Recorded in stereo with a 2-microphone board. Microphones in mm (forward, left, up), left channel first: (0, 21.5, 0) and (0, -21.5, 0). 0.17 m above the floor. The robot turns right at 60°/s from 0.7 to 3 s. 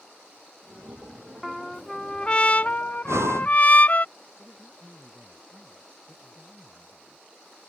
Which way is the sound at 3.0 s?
80° right.